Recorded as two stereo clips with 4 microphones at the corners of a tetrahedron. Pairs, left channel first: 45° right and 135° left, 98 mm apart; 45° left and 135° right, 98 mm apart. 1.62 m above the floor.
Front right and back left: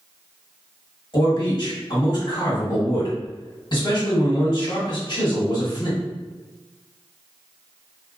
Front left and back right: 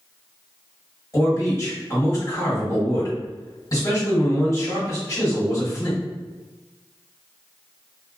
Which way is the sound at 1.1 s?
10° right.